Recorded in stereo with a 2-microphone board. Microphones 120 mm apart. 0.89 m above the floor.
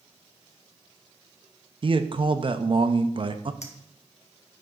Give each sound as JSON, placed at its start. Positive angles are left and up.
{"t": 1.8, "sound": "a man speaking", "side_deg": -45, "distance_m": 0.5}
{"t": 3.6, "sound": "a clink", "side_deg": 75, "distance_m": 0.9}